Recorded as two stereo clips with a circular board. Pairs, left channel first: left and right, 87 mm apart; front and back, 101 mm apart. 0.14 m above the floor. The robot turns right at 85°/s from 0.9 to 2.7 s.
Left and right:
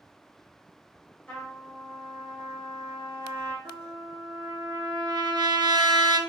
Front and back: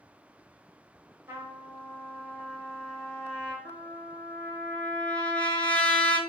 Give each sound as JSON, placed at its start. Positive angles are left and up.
{"t": 1.3, "sound": "a trumpet", "azimuth_deg": 150, "distance_m": 1.4}
{"t": 3.6, "sound": "a trumpet", "azimuth_deg": -70, "distance_m": 0.6}